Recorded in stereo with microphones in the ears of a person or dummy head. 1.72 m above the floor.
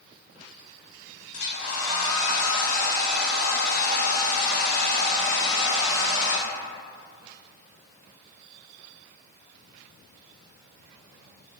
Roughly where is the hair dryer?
Left.